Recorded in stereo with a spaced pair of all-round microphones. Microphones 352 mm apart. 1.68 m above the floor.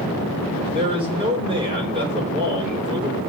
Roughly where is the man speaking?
Centre.